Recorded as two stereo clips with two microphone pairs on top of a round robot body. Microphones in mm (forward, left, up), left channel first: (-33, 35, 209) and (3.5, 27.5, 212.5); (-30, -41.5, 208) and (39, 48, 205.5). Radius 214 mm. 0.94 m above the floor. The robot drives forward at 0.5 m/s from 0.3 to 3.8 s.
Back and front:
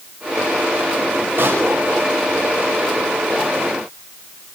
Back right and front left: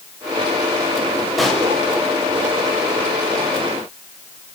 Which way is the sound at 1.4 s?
40° right.